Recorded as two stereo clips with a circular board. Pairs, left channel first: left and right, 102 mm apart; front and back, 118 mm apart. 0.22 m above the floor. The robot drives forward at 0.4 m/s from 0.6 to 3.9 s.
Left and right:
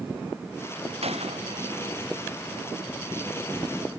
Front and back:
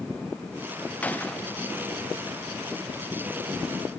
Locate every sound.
1.0 s a gunshot: 80° right